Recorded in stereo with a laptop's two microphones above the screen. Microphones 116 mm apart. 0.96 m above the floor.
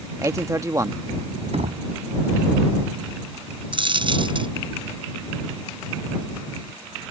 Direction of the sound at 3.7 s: 45° right (ahead or behind).